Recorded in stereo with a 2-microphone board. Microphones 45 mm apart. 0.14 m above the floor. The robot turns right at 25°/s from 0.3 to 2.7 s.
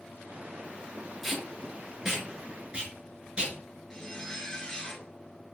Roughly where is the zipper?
Centre.